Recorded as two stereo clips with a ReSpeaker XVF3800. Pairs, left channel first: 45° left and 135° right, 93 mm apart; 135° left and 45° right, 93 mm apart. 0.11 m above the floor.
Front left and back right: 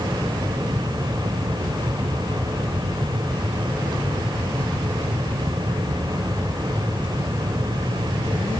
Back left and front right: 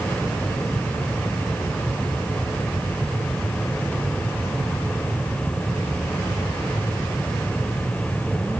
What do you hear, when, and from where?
Only background noise.